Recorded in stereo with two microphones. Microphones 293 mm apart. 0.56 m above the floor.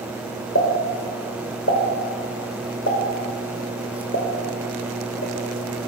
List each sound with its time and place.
0.6 s a pop: 50° left (ahead or behind), 0.9 m